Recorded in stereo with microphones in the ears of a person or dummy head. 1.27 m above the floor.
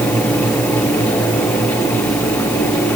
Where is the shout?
No shout in this recording.